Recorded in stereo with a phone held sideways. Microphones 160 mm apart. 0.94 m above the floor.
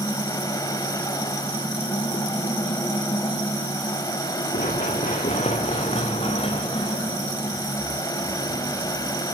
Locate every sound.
0.0 s a fan: 25° left (ahead or behind), 3 m
4.5 s running footsteps: 55° left (ahead or behind), 6 m; by 9.1 s 15° left (ahead or behind), 7 m